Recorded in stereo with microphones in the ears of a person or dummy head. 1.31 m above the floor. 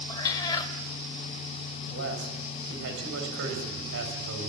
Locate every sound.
0.1 s a cat meowing: 25° left (ahead or behind), 1.8 m
1.9 s a man speaking: 70° right (ahead or behind), 6 m